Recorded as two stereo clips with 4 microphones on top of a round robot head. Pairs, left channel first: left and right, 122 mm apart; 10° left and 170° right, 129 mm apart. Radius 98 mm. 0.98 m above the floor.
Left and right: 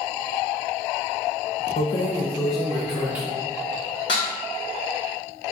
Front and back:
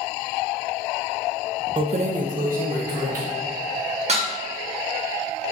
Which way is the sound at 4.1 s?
150° left.